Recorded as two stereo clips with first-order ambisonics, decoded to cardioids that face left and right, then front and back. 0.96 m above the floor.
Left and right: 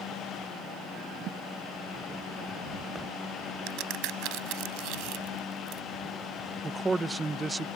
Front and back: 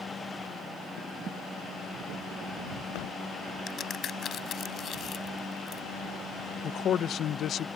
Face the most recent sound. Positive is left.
turn(degrees=-15)